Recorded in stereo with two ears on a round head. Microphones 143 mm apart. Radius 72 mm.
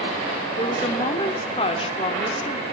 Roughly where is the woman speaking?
Left.